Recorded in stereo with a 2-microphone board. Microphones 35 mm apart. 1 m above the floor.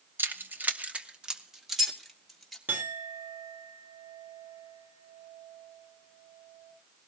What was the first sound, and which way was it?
Keys jangling, 75° right (ahead or behind).